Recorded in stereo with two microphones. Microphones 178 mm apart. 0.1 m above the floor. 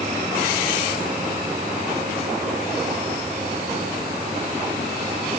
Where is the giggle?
No giggle in this recording.